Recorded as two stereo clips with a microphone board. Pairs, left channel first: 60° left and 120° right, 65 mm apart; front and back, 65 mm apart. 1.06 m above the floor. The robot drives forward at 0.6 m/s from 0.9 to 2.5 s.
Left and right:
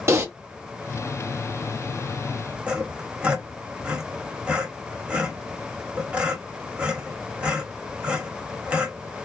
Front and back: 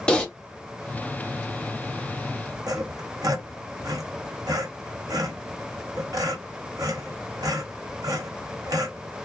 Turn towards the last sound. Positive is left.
turn(degrees=170)